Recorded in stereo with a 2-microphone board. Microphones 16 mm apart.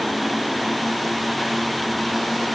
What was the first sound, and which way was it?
Only background noise.